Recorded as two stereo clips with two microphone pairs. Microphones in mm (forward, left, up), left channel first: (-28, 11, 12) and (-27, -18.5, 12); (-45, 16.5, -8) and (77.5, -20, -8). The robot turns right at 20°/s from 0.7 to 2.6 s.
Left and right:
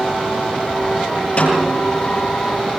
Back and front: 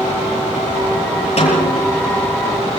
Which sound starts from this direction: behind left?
A snare drum, at 1.4 s.